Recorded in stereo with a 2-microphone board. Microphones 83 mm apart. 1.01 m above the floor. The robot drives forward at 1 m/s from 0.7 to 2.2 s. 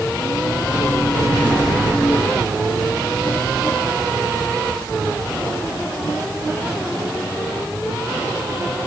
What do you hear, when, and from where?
Only background noise.